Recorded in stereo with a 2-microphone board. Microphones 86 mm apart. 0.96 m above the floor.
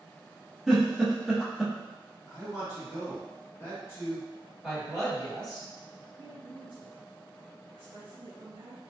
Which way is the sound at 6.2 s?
65° right (ahead or behind).